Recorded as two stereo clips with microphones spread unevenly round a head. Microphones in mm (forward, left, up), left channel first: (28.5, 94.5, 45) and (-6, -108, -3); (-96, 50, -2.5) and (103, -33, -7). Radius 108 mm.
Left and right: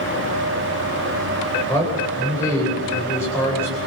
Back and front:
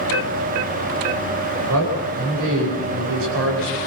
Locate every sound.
1.7 s a man speaking: 5° left, 10 m